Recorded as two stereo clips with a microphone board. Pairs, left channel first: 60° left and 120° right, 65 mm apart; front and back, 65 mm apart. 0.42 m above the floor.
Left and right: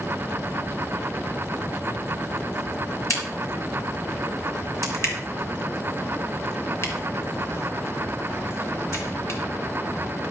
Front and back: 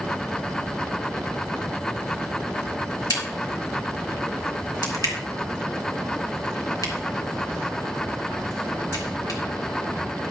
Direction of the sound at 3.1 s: 15° left.